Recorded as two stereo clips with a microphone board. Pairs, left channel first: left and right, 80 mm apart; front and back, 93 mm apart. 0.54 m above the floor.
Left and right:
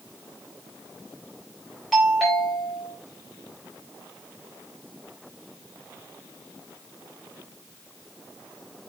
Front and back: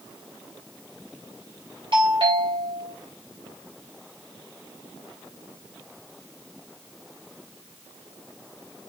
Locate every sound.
1.9 s a doorbell: 175° left, 4 m